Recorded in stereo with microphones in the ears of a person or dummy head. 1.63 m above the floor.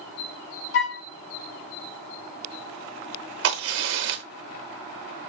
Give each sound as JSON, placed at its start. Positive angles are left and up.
{"t": 0.7, "sound": "a flute", "side_deg": 45, "distance_m": 0.7}
{"t": 3.4, "sound": "a crack", "side_deg": -70, "distance_m": 0.8}